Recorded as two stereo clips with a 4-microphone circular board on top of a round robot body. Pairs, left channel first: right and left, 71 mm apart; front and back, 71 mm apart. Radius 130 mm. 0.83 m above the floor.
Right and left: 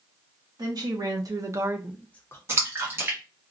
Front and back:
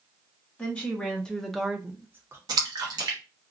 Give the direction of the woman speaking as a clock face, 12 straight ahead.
10 o'clock.